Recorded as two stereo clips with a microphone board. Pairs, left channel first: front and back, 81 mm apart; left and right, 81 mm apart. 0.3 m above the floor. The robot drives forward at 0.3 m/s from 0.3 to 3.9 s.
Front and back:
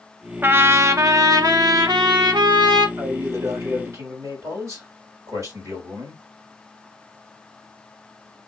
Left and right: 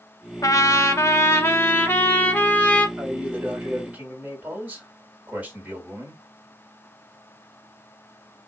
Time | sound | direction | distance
0.4 | a trumpet | 120° left | 0.5 m
3.0 | a man speaking | 145° right | 1.9 m